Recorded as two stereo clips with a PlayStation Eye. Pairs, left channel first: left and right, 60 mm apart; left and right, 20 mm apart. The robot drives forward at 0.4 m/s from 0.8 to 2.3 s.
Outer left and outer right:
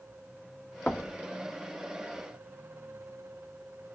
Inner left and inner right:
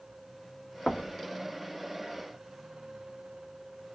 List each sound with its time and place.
0.9 s knocking: 15° left (ahead or behind), 1.0 m